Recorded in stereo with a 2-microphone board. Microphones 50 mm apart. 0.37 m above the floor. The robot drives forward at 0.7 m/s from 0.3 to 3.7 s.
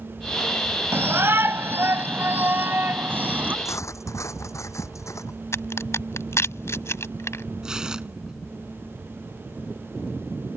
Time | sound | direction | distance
0.9 | a shout | 55° right (ahead or behind) | ?
3.6 | cutlery clinking | 85° left | ?
5.5 | a crack | 65° left (ahead or behind) | ?
7.6 | tearing paper | 15° right (ahead or behind) | ?